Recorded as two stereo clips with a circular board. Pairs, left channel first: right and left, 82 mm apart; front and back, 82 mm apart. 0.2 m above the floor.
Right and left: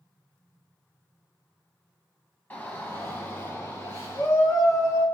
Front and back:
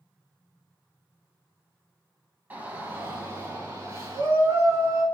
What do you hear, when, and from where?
2.5 s a shout: 135° right, 1.3 m